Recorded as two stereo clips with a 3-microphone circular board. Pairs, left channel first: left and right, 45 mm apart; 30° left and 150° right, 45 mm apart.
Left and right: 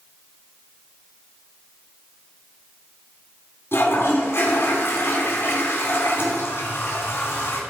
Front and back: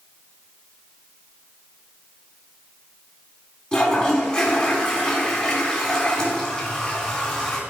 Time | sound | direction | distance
3.7 | a toilet flushing | 95° left | 3.5 m